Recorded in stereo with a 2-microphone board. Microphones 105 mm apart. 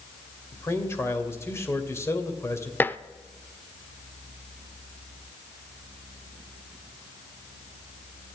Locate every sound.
0.5 s a man speaking: 25° left (ahead or behind), 2 m
2.8 s dishes clattering: 20° left (ahead or behind), 0.5 m